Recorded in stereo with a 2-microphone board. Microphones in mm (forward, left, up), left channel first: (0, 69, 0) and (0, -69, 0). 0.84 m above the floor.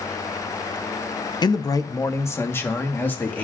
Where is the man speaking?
30° left (ahead or behind), 0.5 m; by 3.4 s 10° left (ahead or behind), 1.4 m.